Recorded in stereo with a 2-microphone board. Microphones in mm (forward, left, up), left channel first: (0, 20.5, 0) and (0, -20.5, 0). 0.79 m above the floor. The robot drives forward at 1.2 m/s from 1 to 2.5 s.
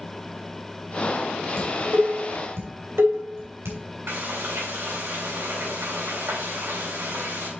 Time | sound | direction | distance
1.6 | dishes clattering | 75° right (ahead or behind) | 2.5 m
4.1 | frying | 70° right (ahead or behind) | 4 m